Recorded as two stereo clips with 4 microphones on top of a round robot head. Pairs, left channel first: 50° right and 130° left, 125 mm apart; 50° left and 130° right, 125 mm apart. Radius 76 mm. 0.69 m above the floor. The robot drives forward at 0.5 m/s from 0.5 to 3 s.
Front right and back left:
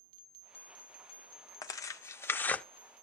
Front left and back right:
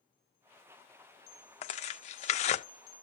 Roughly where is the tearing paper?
Ahead.